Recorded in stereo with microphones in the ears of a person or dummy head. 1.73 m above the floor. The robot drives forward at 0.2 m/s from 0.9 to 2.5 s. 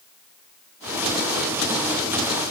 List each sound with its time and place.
Only background noise.